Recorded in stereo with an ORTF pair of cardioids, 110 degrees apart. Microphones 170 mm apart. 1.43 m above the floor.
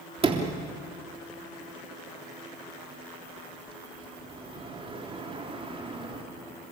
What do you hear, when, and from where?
0.2 s a sliding door: 30° right, 3.5 m